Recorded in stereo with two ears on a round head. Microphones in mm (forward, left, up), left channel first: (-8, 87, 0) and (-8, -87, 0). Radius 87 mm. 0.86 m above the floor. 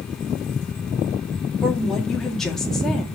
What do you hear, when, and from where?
1.6 s a woman speaking: 5° left (ahead or behind), 1.9 m